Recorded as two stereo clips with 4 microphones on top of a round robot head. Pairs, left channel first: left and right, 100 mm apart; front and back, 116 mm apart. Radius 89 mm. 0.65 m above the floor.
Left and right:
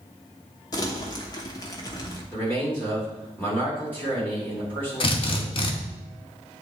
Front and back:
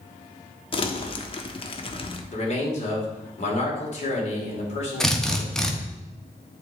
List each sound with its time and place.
0.7 s crumpling: 35° left, 1.1 m
2.3 s a man speaking: 15° left, 2.5 m
5.0 s a drill: 80° left, 1.3 m